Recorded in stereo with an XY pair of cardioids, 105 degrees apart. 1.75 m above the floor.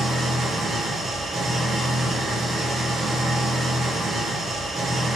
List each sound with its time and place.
0.0 s an engine running: 50° right, 2.0 m